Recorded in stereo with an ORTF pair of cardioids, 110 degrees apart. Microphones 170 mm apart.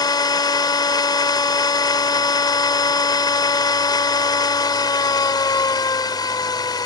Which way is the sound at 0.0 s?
25° left.